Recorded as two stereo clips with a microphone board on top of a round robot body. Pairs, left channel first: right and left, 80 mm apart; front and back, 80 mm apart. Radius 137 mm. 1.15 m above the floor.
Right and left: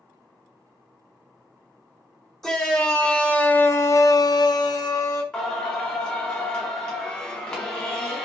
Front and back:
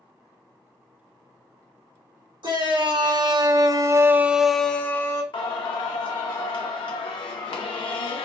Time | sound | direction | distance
2.4 | a shout | 175° right | 1.1 m
5.3 | singing | 10° right | 0.5 m